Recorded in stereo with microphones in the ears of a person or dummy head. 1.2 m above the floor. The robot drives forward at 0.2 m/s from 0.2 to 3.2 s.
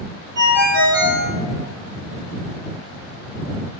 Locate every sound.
0.3 s a ringtone: 35° right (ahead or behind), 1.6 m; by 1.3 s 40° right (ahead or behind), 1.5 m